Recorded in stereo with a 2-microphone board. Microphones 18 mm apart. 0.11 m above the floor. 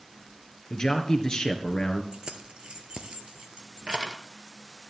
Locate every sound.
0.7 s a man speaking: 40° left (ahead or behind), 1.7 m
2.1 s keys jangling: 55° right (ahead or behind), 1.4 m